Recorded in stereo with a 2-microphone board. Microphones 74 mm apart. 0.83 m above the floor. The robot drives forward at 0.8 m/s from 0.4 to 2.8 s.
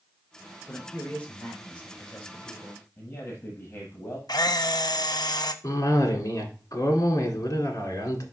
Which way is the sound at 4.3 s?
70° left (ahead or behind).